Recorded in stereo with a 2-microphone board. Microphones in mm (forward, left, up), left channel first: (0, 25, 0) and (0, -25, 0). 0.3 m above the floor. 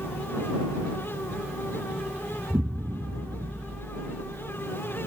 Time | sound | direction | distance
2.5 | an explosion | 70° right (ahead or behind) | ?